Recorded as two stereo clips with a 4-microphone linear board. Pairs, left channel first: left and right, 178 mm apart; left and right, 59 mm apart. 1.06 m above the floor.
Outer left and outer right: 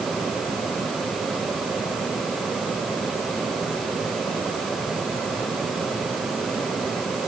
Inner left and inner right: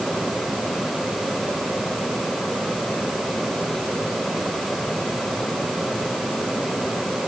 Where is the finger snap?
No finger snap in this recording.